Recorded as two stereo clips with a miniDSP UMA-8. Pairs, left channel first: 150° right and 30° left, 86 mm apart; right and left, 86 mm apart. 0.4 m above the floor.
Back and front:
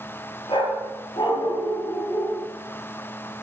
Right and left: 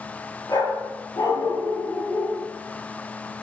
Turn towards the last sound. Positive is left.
turn(degrees=-135)